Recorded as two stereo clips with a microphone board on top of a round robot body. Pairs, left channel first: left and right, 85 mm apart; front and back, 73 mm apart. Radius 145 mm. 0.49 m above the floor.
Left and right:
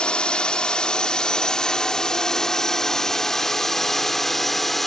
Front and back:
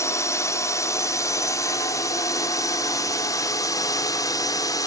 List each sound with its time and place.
0.0 s a drone: 15° left; by 4.9 s 5° left